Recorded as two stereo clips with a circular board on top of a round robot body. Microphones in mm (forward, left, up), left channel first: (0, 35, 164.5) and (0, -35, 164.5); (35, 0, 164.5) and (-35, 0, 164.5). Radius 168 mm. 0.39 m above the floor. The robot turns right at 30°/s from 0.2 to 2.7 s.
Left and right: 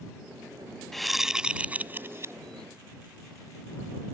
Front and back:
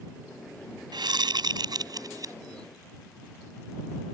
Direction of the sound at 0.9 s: 175° left.